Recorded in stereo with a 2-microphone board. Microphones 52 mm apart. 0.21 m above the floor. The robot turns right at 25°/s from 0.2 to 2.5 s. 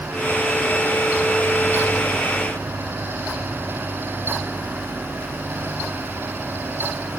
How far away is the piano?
I don't hear a piano.